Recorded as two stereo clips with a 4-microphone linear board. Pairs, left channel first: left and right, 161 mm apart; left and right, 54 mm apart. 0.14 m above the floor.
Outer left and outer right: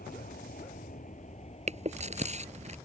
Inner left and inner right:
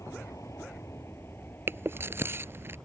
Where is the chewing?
45° right (ahead or behind).